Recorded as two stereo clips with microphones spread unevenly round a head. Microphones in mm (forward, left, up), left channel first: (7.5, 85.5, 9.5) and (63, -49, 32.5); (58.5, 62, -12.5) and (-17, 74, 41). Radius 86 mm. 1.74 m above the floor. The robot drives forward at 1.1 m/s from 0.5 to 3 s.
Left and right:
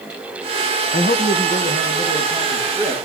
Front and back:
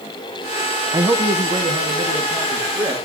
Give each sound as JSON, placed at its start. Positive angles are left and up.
{"t": 0.9, "sound": "a man speaking", "azimuth_deg": 160, "distance_m": 1.1}